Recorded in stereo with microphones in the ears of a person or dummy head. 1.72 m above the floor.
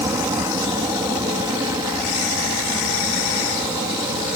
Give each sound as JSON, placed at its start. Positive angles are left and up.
{"t": 0.0, "sound": "an aircraft", "side_deg": -20}